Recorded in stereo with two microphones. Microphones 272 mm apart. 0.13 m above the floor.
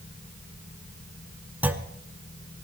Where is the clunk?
5° right (ahead or behind), 0.9 m.